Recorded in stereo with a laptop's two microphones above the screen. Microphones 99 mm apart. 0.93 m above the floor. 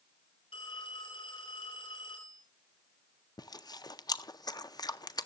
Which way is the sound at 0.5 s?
70° left (ahead or behind).